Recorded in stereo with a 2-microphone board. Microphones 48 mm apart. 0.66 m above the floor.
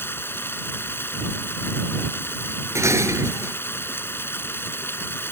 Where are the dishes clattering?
80° right.